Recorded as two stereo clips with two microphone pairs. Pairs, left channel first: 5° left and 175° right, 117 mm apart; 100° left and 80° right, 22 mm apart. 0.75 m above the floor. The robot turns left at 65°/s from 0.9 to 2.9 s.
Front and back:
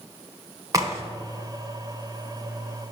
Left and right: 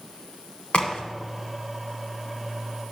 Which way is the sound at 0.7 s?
125° left.